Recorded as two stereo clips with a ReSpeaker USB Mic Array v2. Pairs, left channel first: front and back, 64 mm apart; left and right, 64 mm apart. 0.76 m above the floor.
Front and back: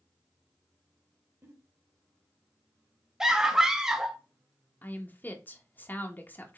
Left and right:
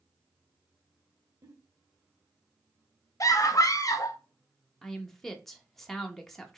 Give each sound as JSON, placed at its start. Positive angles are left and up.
{"t": 1.4, "sound": "a giggle", "azimuth_deg": -130, "distance_m": 1.2}
{"t": 3.2, "sound": "a scream", "azimuth_deg": 100, "distance_m": 0.8}
{"t": 4.8, "sound": "a woman speaking", "azimuth_deg": 5, "distance_m": 0.7}